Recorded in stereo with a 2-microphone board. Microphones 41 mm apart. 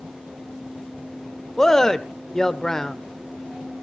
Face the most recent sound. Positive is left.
turn(degrees=10)  # may be behind; listen again after turning